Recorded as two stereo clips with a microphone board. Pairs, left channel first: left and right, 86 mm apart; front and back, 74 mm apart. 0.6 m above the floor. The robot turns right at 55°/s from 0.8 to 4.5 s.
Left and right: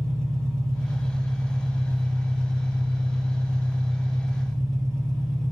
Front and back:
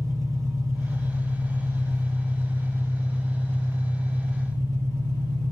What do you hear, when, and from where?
0.0 s an engine running: 170° left, 1.3 m; by 5.5 s 10° left, 1.3 m